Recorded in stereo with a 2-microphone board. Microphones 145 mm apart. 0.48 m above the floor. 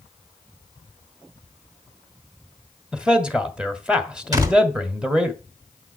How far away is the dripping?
I don't hear dripping.